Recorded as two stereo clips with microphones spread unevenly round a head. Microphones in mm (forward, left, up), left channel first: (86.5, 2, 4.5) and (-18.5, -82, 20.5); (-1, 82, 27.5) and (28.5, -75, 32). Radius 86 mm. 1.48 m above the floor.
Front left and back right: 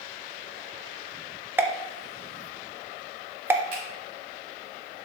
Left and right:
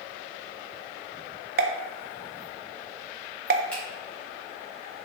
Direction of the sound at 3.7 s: 175° right.